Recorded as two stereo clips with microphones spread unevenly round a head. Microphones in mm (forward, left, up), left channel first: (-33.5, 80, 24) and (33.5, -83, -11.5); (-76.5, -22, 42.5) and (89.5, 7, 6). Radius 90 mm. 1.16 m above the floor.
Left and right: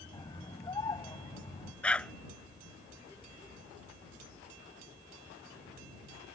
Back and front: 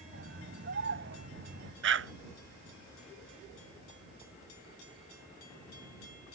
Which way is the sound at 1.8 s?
30° left.